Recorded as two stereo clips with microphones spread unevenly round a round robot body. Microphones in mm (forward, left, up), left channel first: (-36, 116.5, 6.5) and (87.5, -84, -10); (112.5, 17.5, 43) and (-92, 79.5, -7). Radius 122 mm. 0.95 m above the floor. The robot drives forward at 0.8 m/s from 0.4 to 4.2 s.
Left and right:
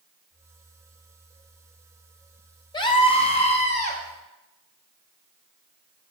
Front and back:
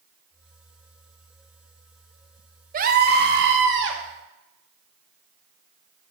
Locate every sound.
2.7 s a scream: 165° right, 0.9 m; by 4.0 s 175° right, 1.9 m